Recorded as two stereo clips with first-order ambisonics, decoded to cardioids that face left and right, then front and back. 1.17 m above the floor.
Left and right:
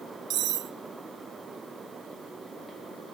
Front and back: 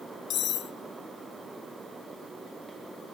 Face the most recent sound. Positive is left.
turn(degrees=-50)